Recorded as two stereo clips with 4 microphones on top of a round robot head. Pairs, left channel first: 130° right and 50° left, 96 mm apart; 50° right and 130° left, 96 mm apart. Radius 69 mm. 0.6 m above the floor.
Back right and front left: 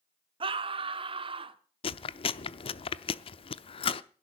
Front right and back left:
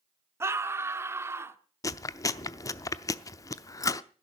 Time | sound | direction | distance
0.4 | a scream | 70° left | 1.3 m
1.8 | chewing | 105° right | 0.6 m